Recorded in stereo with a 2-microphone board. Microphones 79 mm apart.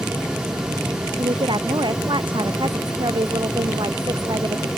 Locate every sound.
1.2 s a woman speaking: 75° right (ahead or behind); by 4.7 s 65° right (ahead or behind)